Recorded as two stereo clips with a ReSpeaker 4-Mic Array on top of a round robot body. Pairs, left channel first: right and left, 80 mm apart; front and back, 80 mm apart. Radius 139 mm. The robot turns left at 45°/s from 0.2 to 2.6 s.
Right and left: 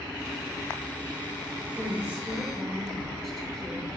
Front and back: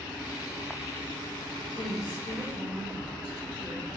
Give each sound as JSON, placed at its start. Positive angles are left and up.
{"t": 1.8, "sound": "a woman speaking", "azimuth_deg": 35, "distance_m": 3.5}